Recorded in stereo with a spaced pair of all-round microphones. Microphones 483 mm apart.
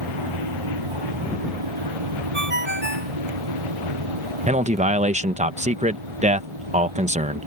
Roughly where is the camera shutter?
No camera shutter in this recording.